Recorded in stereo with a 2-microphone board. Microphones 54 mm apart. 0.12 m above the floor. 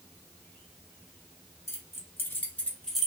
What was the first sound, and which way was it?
Keys jangling, 55° left (ahead or behind).